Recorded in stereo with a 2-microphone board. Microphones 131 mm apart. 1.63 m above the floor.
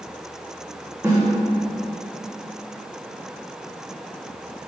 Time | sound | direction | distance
1.0 | a snare drum | 20° right (ahead or behind) | 1.9 m